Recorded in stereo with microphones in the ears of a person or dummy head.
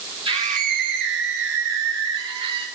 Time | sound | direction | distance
0.2 | a scream | 30° right (ahead or behind) | 1.3 m